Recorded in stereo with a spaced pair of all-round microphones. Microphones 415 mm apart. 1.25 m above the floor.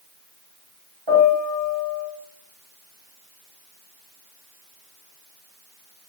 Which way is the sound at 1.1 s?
70° right (ahead or behind).